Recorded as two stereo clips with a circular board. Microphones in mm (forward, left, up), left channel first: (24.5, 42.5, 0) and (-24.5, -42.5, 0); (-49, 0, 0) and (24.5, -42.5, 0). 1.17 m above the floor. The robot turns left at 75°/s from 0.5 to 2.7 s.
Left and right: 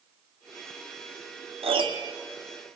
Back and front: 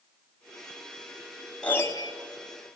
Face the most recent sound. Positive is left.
turn(degrees=145)